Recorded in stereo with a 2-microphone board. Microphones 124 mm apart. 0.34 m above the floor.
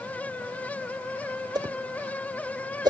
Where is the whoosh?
35° right (ahead or behind), 0.6 m.